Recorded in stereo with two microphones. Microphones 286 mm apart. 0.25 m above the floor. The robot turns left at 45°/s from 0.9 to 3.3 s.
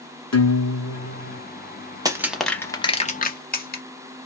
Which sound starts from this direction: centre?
Crushing, at 2.0 s.